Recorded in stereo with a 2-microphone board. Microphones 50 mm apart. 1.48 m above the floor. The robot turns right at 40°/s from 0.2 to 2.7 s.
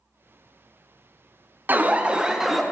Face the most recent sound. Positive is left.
turn(degrees=0)